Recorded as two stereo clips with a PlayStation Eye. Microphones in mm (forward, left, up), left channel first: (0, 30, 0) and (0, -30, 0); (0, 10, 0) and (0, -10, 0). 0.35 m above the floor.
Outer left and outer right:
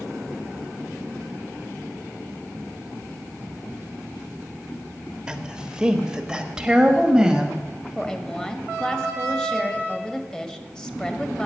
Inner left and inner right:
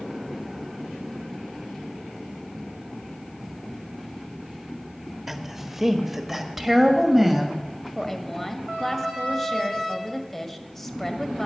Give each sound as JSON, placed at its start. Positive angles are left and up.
{"t": 5.3, "sound": "a woman speaking", "side_deg": -10, "distance_m": 1.2}
{"t": 8.0, "sound": "a woman speaking", "side_deg": 15, "distance_m": 1.4}